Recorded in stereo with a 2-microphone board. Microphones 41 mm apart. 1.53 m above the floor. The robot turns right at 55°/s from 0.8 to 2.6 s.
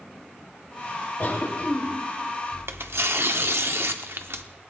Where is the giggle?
I don't hear a giggle.